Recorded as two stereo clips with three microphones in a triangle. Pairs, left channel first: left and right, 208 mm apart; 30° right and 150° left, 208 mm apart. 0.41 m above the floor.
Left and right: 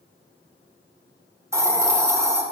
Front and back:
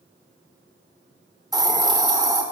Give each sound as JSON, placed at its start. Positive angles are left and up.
{"t": 1.5, "sound": "a hiss", "azimuth_deg": -155, "distance_m": 0.8}